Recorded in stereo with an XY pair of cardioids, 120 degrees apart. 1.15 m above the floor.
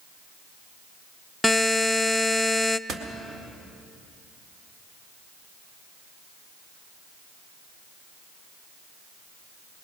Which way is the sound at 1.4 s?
5° left.